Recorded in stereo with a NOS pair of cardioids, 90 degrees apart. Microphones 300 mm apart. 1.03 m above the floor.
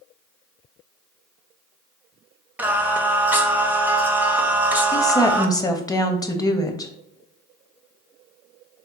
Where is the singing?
5° right, 0.6 m.